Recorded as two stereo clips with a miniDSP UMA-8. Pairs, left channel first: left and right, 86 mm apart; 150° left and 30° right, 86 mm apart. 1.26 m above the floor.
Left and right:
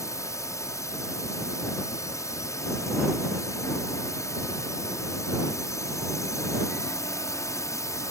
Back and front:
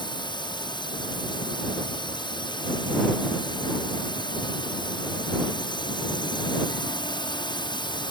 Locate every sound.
0.0 s a drone: 140° left